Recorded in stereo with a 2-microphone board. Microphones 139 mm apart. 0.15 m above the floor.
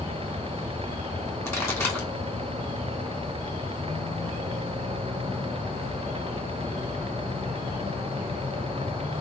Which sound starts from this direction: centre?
A pop, at 1.4 s.